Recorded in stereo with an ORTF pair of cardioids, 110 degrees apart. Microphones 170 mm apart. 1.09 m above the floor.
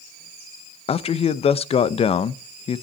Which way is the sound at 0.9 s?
35° left.